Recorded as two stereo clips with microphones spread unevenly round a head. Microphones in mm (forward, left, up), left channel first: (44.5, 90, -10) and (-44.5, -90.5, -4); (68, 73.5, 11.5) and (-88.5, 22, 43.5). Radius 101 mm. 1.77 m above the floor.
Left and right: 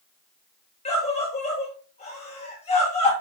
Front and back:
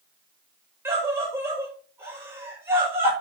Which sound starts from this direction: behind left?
A scream, at 0.8 s.